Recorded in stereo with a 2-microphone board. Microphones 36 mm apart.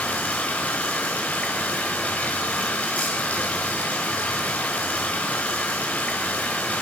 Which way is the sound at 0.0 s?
55° left (ahead or behind).